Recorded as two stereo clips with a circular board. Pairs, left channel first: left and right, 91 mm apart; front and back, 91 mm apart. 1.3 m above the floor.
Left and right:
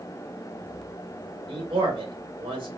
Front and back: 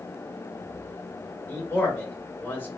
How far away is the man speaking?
About 1.9 m.